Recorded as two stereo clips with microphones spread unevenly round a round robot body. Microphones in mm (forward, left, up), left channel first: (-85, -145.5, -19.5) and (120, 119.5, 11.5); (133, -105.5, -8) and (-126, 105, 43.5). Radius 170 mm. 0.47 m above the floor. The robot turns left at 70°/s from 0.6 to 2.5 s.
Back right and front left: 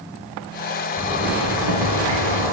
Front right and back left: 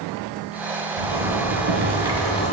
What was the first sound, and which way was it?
A zipper, 140° left.